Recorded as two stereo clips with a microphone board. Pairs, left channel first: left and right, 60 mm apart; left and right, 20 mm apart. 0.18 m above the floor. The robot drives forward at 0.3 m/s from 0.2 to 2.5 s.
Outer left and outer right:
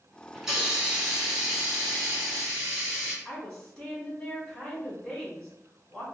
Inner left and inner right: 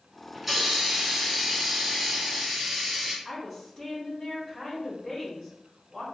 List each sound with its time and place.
0.3 s a hiss: 5° right (ahead or behind), 1.1 m
3.2 s a woman speaking: 10° left (ahead or behind), 1.3 m